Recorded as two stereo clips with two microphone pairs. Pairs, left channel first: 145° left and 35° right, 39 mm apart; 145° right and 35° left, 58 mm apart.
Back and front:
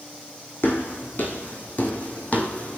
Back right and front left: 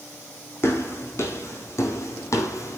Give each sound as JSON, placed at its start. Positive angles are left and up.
{"t": 0.6, "sound": "footsteps", "azimuth_deg": 170, "distance_m": 3.5}